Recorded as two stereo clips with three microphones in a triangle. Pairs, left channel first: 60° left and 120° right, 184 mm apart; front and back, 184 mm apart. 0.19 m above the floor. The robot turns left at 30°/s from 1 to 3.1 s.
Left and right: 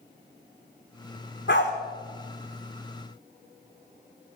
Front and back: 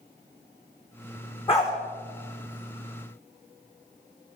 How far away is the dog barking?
About 4.5 m.